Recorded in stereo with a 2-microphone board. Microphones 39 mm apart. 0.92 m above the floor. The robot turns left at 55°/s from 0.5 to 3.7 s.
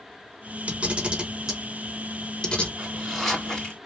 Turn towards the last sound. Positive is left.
turn(degrees=155)